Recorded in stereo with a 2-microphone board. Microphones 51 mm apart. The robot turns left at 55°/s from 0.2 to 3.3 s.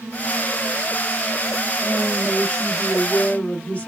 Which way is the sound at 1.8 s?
15° left (ahead or behind).